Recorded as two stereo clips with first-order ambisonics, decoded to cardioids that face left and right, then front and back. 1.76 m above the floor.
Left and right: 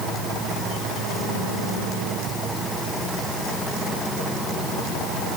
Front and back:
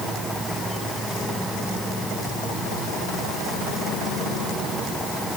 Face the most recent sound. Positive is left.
No sound to turn to.